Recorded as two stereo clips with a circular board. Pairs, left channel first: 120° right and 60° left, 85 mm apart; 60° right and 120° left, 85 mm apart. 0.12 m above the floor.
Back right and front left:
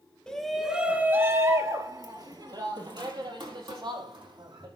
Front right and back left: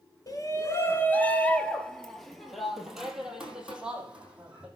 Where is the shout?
45° right, 1.4 m; by 4.7 s 45° left, 4.5 m.